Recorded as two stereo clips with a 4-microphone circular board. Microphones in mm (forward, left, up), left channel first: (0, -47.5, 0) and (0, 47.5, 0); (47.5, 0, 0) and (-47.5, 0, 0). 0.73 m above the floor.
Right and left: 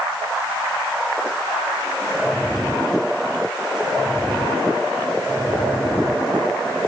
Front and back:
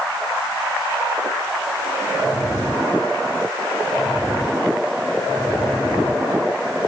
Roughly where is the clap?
I don't hear a clap.